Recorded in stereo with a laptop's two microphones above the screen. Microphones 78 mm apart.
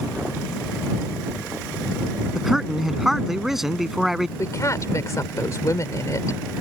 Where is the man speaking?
5° right (ahead or behind).